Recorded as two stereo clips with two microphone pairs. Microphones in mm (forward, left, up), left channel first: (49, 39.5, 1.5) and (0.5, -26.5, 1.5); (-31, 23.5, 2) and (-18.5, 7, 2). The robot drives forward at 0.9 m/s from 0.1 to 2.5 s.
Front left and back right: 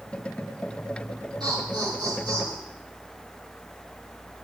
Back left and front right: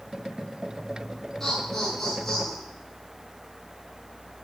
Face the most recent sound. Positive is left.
turn(degrees=-155)